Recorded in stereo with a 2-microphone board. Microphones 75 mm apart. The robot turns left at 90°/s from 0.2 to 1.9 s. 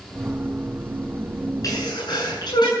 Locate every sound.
1.6 s a sneeze: 50° left (ahead or behind), 9 m; by 2.7 s 75° left (ahead or behind), 9 m